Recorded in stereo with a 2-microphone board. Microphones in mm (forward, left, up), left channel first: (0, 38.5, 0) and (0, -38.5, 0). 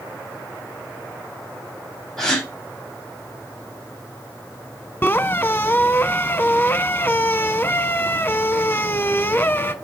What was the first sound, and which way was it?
A gasp, 5° left (ahead or behind).